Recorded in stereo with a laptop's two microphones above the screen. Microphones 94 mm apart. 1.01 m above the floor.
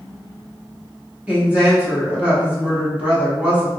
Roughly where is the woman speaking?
Centre.